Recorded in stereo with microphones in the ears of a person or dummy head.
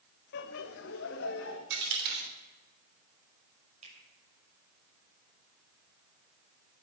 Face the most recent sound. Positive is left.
turn(degrees=-45)  # may be behind; listen again after turning